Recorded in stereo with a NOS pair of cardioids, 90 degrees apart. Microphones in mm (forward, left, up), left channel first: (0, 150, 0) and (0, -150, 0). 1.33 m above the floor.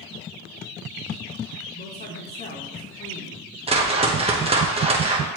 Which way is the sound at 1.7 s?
35° left.